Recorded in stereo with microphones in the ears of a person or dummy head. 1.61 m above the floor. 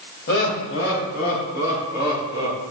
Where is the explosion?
No explosion in this recording.